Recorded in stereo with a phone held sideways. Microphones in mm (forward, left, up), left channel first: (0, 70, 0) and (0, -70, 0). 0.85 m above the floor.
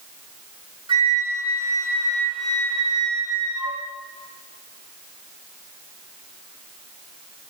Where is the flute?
35° right (ahead or behind), 1.1 m.